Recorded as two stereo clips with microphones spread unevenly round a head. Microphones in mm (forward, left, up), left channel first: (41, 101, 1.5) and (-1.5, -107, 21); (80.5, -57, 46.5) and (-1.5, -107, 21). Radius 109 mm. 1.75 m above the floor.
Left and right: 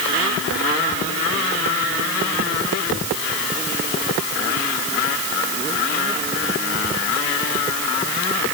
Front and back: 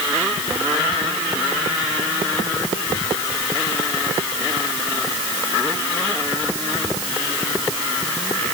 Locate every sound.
Only background noise.